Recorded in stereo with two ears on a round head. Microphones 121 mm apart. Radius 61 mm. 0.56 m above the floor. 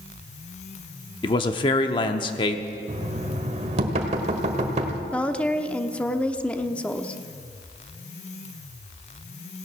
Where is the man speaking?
35° left (ahead or behind), 0.8 m.